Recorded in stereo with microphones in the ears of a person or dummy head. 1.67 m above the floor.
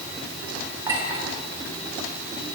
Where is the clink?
20° right (ahead or behind), 3 m.